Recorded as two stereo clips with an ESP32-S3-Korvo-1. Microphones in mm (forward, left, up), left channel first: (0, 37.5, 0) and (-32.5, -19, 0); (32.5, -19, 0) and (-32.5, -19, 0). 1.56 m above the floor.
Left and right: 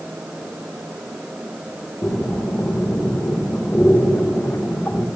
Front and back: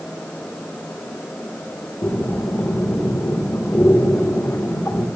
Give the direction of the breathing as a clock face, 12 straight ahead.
11 o'clock.